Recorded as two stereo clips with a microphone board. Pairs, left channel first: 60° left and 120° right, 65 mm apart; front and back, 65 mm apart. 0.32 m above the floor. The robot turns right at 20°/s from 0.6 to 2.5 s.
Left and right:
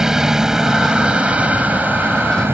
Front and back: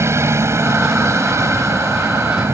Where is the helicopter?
160° left; by 2.5 s 160° right.